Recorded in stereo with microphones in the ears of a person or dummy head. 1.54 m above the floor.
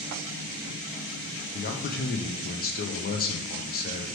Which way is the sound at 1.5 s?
45° left (ahead or behind).